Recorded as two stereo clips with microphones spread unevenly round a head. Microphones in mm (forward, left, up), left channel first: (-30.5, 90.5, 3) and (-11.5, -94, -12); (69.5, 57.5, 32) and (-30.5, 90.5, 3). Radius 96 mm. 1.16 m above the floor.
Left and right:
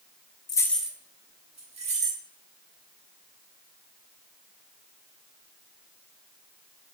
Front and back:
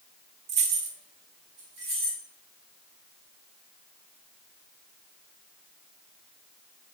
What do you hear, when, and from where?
0.5 s keys jangling: 155° left, 0.5 m; by 2.2 s 135° right, 1.4 m